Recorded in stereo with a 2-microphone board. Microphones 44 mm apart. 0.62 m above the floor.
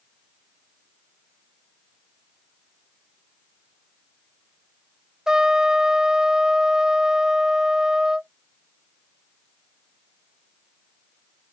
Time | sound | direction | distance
5.3 | a trumpet | 20° right (ahead or behind) | ?